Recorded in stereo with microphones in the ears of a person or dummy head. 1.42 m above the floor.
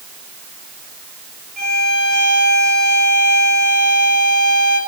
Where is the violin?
40° right (ahead or behind), 4.5 m.